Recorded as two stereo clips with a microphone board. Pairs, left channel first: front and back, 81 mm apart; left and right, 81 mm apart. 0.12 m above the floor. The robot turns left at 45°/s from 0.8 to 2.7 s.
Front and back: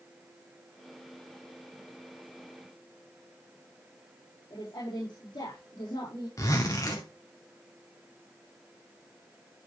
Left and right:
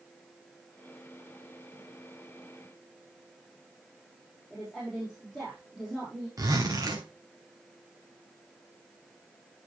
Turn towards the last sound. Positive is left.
turn(degrees=-45)